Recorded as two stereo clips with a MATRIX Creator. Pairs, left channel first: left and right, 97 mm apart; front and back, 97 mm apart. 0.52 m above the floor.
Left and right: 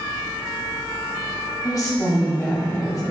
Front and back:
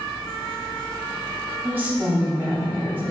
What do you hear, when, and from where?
1.6 s a woman speaking: 120° left, 0.9 m